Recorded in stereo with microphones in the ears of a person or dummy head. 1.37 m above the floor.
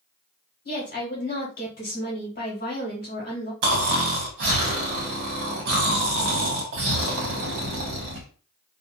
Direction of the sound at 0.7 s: 45° left (ahead or behind).